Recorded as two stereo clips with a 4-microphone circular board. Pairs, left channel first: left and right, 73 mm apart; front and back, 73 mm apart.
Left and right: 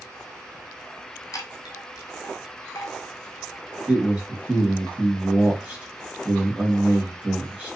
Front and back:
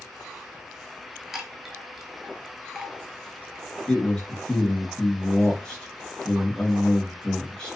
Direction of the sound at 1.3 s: 95° left.